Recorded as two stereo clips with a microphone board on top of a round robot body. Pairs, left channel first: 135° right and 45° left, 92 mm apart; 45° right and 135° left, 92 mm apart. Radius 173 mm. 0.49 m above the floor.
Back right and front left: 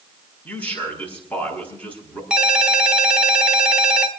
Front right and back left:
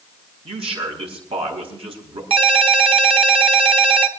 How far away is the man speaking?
About 5.5 m.